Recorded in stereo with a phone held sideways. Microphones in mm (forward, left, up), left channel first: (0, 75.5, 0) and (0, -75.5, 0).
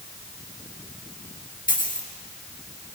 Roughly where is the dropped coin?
Left.